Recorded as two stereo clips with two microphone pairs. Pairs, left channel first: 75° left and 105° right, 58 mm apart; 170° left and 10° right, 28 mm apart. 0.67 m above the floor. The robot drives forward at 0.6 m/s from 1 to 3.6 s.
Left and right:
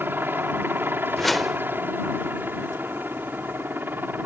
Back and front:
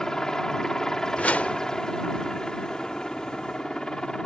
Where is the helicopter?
135° right; by 4.3 s 140° right.